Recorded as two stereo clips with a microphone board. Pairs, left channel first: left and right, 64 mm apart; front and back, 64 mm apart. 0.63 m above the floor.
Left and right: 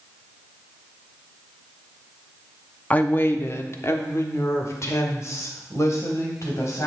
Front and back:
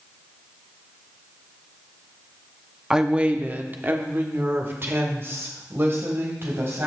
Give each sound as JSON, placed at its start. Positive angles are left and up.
{"t": 2.9, "sound": "a woman speaking", "azimuth_deg": 110, "distance_m": 0.7}